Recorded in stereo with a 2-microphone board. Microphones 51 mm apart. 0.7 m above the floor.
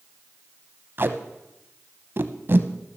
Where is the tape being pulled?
45° right (ahead or behind), 0.7 m.